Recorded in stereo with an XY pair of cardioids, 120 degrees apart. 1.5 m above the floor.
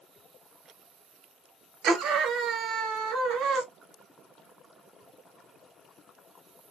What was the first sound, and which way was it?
A scream, 65° right.